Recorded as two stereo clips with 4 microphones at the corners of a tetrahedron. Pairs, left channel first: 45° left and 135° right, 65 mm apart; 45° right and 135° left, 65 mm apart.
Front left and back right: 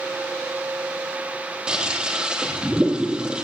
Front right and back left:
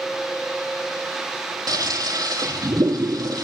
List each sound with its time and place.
1.7 s a toilet flushing: 150° left, 3.5 m